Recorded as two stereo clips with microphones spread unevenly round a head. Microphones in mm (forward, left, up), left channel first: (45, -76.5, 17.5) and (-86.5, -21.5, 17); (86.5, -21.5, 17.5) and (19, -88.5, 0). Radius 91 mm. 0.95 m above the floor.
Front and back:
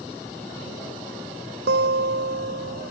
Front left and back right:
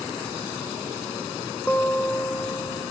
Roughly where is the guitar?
Behind left.